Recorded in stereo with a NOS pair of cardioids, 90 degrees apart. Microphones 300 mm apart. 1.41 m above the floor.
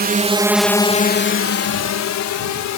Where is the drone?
35° right; by 2.8 s 75° left.